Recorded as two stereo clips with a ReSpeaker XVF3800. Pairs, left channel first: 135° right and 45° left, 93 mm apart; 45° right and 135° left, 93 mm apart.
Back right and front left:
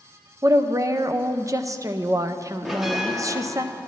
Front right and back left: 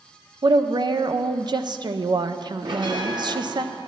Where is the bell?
130° left, 1.3 m.